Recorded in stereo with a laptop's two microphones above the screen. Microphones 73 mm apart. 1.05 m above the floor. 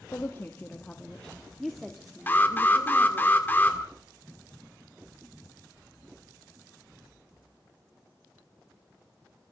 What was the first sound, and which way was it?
A woman speaking, 35° left (ahead or behind).